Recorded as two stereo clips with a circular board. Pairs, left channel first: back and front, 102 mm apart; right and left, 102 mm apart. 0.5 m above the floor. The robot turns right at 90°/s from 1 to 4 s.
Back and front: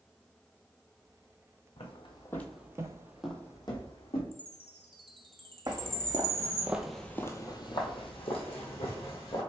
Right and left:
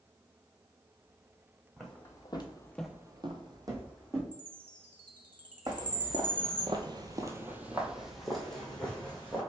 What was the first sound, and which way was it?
Footsteps, 175° left.